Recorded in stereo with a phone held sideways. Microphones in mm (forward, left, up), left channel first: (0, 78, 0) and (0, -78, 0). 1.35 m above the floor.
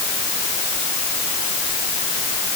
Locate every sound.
Only background noise.